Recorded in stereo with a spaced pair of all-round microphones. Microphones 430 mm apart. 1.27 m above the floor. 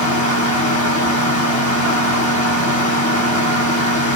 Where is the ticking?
No ticking in this recording.